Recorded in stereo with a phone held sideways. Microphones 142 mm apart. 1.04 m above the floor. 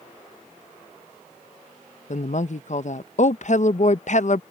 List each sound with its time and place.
2.1 s a woman speaking: 60° left (ahead or behind)